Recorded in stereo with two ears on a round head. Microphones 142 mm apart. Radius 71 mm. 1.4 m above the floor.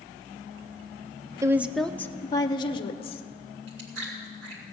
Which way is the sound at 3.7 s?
80° right.